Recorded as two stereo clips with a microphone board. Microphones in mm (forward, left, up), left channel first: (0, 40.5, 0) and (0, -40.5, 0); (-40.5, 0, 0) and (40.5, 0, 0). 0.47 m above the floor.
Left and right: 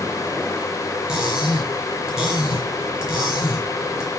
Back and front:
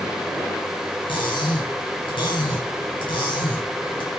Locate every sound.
1.1 s cutlery clinking: 170° right, 5.5 m